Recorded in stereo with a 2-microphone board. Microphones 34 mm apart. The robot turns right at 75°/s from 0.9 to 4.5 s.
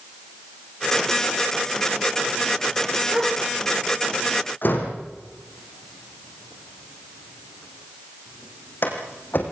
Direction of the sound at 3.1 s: 20° right (ahead or behind).